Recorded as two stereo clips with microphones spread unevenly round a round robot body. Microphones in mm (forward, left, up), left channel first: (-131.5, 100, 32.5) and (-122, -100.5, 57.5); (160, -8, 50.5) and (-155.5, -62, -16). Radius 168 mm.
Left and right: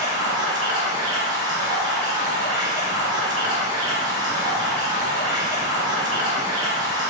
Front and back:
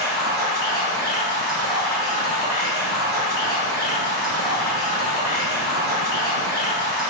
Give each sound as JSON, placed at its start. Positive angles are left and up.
{"t": 0.0, "sound": "running water", "azimuth_deg": -70, "distance_m": 1.4}